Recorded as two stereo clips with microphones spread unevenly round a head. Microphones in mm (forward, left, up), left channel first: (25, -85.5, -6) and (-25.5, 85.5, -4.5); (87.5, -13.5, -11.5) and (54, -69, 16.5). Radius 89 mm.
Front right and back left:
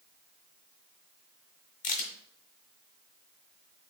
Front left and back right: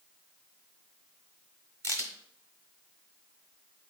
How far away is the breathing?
I don't hear breathing.